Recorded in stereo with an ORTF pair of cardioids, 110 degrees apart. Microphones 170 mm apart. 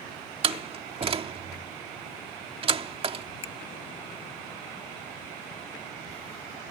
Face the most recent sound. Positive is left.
turn(degrees=35)